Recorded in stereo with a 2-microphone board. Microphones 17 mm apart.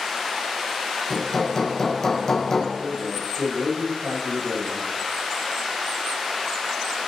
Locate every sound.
1.1 s hammering: 25° left (ahead or behind), 3.5 m
2.8 s a man speaking: 70° right (ahead or behind), 6.5 m